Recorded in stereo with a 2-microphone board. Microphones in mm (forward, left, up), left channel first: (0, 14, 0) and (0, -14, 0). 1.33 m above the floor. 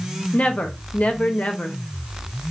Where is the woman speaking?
50° left (ahead or behind), 0.5 m.